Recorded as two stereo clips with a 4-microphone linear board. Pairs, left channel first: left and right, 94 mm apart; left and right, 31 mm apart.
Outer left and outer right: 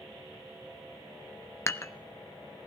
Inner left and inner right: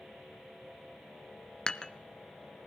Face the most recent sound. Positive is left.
turn(degrees=25)  # may be behind; listen again after turning